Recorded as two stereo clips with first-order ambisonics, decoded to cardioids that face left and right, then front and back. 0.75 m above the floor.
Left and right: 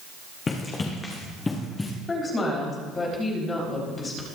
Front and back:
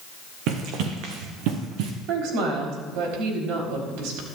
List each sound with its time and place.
0.5 s running footsteps: 160° left, 2.5 m; by 1.9 s 170° left, 3 m
2.1 s a woman speaking: 160° left, 4 m